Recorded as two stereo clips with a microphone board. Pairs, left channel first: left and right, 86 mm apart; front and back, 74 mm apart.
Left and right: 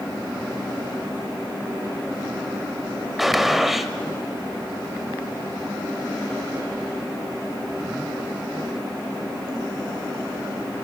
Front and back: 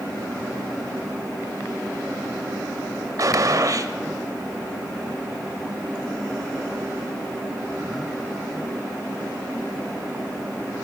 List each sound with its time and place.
3.2 s a gunshot: 175° right, 1.1 m